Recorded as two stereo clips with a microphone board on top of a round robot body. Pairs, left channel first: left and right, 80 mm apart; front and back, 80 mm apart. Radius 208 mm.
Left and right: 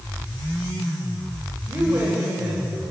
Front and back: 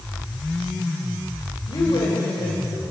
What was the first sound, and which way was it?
A woman speaking, 25° right.